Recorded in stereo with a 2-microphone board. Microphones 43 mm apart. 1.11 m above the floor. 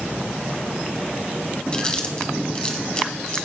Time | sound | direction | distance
1.7 | chewing | 25° left (ahead or behind) | 1.5 m